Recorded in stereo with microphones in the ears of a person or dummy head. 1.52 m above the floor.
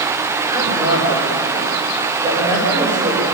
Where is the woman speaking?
20° right (ahead or behind), 7 m.